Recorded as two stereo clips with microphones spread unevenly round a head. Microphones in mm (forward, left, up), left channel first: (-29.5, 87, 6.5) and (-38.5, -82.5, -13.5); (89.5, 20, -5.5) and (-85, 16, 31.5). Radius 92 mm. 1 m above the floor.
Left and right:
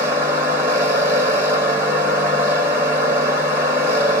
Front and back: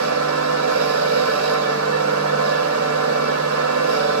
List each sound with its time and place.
0.0 s a machine running: 170° right, 1.3 m